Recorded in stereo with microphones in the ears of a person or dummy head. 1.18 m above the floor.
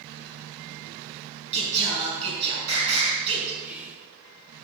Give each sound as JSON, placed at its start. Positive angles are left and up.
{"t": 1.5, "sound": "singing", "side_deg": -35, "distance_m": 4.5}
{"t": 3.6, "sound": "whispering", "side_deg": -10, "distance_m": 1.9}